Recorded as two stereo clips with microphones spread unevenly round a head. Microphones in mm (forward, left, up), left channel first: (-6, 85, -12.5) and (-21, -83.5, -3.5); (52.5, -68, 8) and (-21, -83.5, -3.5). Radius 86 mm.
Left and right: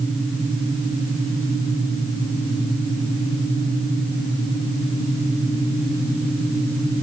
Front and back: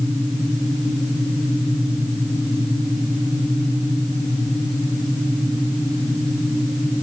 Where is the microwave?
I don't hear a microwave.